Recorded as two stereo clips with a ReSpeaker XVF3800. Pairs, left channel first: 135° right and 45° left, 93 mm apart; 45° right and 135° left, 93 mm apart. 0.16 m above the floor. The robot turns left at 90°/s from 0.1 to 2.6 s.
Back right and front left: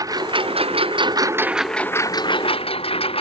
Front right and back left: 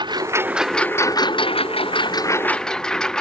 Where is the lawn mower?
95° left; by 3.2 s 130° right.